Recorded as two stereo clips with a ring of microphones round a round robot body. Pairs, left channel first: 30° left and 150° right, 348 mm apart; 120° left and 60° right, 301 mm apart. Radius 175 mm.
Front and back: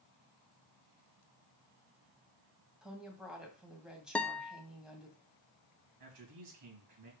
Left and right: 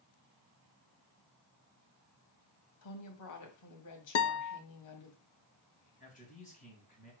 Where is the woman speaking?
120° left, 2.0 m.